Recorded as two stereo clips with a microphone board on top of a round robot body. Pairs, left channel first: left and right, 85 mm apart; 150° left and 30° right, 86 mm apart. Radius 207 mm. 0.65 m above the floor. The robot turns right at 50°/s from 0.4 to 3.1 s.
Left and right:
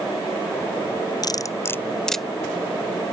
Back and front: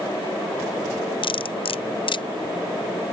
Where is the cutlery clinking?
130° left; by 2.2 s straight behind.